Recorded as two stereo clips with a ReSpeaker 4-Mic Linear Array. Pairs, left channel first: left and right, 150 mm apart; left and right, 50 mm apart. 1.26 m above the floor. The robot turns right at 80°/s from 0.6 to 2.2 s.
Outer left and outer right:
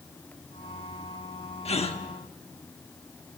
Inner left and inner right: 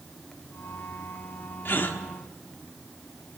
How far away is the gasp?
About 1.0 m.